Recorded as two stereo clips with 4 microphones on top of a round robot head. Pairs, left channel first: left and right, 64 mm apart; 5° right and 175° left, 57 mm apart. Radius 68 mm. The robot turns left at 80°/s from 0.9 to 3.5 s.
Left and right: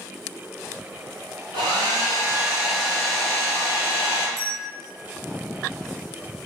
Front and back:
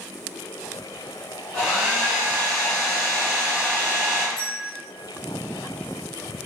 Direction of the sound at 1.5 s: 80° right.